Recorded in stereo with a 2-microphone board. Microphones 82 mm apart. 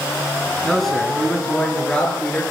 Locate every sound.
0.6 s a man speaking: centre (ahead or behind), 5 m; by 2.4 s 15° left (ahead or behind), 7 m